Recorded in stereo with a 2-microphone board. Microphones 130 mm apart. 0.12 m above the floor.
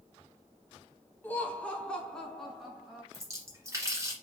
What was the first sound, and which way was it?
Laughter, 15° left (ahead or behind).